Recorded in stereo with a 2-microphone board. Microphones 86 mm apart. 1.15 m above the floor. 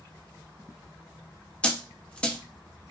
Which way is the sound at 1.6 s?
10° left (ahead or behind).